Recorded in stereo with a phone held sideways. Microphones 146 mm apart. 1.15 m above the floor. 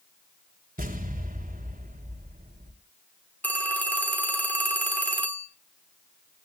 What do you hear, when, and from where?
0.8 s an explosion: 80° right, 3 m
3.4 s a phone ringing: 10° left (ahead or behind), 2.5 m